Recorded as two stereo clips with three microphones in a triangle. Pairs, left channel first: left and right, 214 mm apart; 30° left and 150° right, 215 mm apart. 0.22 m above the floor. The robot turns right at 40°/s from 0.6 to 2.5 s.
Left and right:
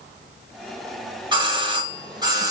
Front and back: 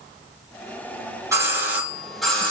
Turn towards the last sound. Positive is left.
turn(degrees=-50)